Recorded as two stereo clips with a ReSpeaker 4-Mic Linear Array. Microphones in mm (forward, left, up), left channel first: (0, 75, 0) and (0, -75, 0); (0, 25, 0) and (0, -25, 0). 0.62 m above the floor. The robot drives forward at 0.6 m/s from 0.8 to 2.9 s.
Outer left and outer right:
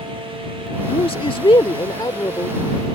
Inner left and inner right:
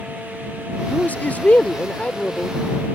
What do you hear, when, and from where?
0.9 s a man speaking: 40° left (ahead or behind); by 2.6 s 25° left (ahead or behind)